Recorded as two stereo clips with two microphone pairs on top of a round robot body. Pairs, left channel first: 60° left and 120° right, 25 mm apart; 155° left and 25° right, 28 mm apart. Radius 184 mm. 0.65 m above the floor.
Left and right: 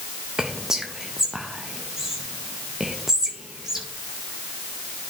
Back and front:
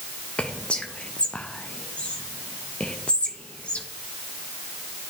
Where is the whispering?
175° left, 0.8 m.